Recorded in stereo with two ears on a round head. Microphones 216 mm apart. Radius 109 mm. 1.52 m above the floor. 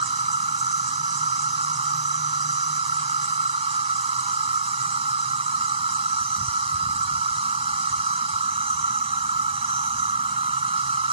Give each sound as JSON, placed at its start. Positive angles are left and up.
{"t": 0.0, "sound": "an insect", "side_deg": -25}